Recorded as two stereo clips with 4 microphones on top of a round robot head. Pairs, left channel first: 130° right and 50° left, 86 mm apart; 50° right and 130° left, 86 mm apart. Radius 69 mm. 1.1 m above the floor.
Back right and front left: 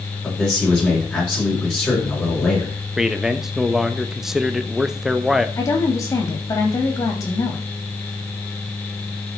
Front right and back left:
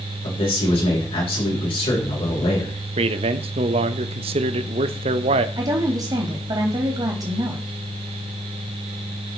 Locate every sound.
0.2 s a man speaking: 55° right, 5.5 m
3.0 s a man speaking: 135° left, 0.9 m
5.6 s a woman speaking: 175° left, 2.5 m